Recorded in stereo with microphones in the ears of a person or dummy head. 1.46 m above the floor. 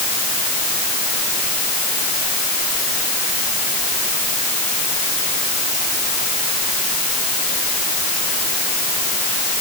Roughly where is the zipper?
No zipper in this recording.